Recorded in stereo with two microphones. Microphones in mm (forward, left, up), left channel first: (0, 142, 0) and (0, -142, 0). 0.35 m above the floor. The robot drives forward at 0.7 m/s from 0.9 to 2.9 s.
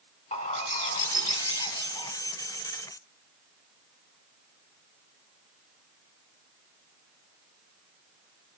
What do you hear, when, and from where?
0.3 s a bird: 25° left (ahead or behind), 1.2 m; by 2.1 s 20° left (ahead or behind), 1.8 m